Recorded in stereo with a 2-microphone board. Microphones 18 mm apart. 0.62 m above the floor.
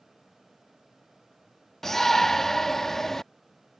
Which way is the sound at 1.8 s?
20° left (ahead or behind).